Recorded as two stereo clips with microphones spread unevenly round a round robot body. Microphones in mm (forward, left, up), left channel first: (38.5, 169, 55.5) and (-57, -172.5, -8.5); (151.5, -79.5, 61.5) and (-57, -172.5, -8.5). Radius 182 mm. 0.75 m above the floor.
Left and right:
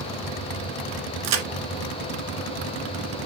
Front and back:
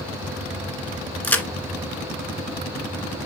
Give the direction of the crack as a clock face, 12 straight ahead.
2 o'clock.